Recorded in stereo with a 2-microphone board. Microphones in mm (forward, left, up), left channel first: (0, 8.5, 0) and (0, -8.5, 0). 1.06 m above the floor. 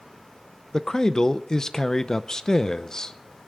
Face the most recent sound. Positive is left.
turn(degrees=35)  # may be behind; listen again after turning